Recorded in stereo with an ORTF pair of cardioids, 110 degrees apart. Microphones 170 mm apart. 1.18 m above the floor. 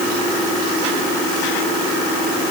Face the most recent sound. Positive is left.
No sound to turn to.